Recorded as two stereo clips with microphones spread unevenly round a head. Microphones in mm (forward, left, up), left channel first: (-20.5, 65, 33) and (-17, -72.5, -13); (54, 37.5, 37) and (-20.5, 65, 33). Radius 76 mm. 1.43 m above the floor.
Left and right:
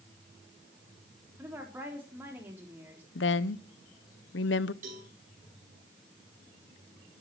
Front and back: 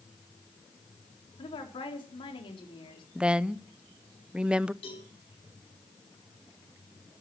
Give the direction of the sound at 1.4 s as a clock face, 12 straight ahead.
12 o'clock.